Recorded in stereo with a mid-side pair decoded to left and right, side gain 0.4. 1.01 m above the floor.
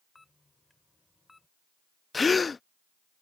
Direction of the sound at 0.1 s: 20° left.